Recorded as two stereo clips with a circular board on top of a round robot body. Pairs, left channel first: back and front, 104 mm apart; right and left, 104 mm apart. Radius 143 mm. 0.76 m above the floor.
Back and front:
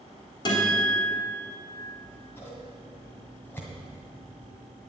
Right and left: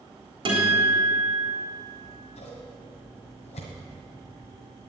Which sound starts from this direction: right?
Scissors, at 1.9 s.